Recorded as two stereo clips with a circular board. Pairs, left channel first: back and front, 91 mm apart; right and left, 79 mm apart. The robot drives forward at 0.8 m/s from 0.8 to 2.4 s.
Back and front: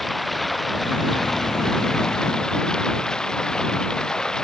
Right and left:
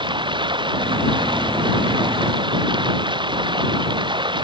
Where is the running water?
90° left; by 4.4 s 95° left.